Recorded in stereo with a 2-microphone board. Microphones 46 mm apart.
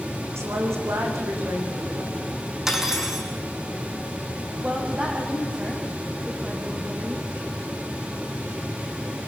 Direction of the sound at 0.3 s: 70° right (ahead or behind).